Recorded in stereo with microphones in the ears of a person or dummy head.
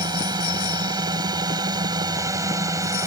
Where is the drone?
20° right (ahead or behind).